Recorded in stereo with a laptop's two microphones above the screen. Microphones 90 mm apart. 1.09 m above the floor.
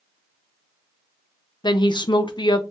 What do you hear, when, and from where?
1.6 s a woman speaking: 60° left (ahead or behind), 0.5 m